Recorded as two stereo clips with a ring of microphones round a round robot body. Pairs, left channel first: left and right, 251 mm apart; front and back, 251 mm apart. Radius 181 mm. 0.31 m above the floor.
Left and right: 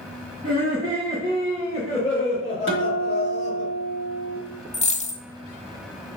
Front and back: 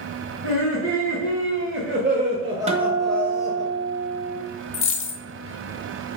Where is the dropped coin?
30° left, 0.9 m.